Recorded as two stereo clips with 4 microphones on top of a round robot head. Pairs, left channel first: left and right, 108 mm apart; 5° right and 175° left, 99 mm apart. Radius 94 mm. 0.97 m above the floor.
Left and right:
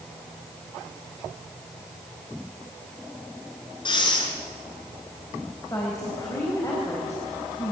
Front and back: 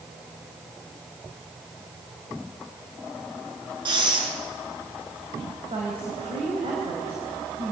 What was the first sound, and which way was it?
Breathing, 135° left.